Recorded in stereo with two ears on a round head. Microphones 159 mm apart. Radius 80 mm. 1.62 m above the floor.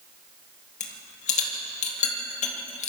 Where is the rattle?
45° left (ahead or behind), 2.5 m.